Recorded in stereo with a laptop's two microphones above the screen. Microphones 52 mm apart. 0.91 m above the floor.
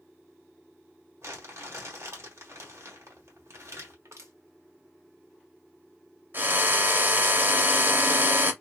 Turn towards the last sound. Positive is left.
turn(degrees=-45)  # may be behind; listen again after turning